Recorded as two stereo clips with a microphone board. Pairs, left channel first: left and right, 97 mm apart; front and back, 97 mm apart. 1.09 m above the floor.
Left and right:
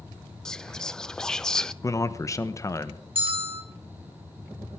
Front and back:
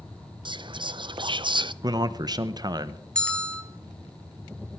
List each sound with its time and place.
0.5 s whispering: 170° left, 0.5 m
1.8 s a man speaking: 140° left, 0.8 m
3.1 s a bell: 80° right, 1.8 m